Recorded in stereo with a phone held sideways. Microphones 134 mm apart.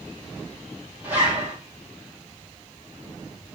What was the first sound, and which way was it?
A zipper, 15° right (ahead or behind).